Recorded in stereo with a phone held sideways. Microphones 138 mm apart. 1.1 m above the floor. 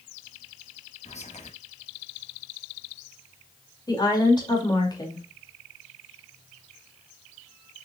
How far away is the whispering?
About 1.8 m.